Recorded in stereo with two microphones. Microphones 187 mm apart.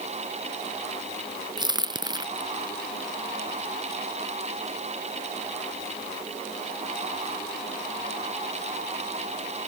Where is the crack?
20° right (ahead or behind).